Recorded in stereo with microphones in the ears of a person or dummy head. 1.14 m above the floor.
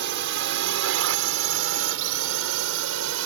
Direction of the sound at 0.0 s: 60° right (ahead or behind).